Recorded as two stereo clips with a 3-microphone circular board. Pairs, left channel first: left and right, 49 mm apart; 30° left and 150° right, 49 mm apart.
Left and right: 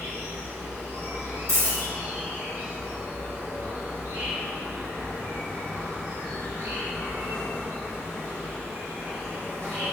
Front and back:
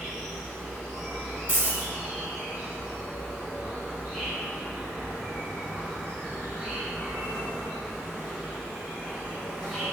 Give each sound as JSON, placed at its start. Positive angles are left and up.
{"t": 0.0, "sound": "an insect", "azimuth_deg": -70, "distance_m": 1.3}
{"t": 1.5, "sound": "a dropped coin", "azimuth_deg": -85, "distance_m": 1.8}